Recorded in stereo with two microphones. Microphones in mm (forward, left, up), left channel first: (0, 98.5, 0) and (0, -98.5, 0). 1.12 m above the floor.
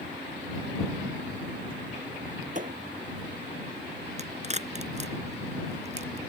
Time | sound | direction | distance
2.5 | a thud | 40° right (ahead or behind) | ?
4.2 | a crack | 35° right (ahead or behind) | ?